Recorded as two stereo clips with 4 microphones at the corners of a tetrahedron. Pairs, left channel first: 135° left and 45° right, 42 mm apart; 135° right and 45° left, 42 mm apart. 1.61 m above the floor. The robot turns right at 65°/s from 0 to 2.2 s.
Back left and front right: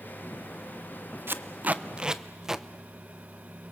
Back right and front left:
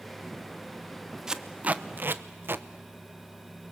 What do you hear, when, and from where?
1.3 s tape being pulled: 30° right, 0.8 m; by 2.6 s 30° left, 0.8 m